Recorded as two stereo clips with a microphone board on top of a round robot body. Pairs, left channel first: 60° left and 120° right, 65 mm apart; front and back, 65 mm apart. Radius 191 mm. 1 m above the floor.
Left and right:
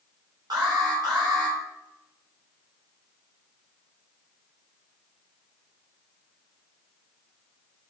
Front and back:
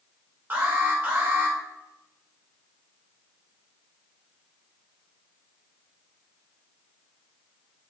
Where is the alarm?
120° right, 3 m.